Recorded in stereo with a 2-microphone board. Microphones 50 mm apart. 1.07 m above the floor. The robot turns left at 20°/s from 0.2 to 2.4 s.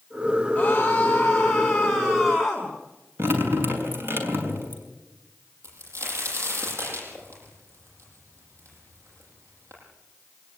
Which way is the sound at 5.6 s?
70° right (ahead or behind).